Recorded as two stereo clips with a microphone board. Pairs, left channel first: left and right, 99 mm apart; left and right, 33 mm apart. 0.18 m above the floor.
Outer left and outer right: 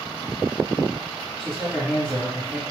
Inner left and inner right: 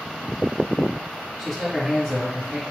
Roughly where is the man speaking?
Centre.